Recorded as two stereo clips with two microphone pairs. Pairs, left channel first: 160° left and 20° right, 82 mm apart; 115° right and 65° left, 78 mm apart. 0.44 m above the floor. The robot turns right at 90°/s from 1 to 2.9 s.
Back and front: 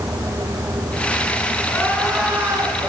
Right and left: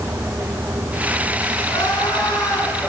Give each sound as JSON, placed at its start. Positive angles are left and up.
{"t": 1.6, "sound": "crying", "azimuth_deg": -150, "distance_m": 3.5}